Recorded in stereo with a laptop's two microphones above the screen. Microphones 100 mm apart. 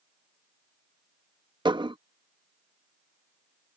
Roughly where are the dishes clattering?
Right.